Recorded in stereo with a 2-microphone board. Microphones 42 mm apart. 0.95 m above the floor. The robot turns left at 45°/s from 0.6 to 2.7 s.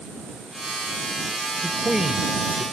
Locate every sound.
1.6 s a man speaking: 10° left (ahead or behind); by 2.6 s 35° right (ahead or behind)